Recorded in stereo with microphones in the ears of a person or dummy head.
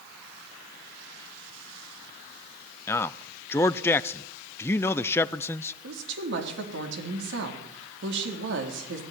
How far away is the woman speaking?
About 4 m.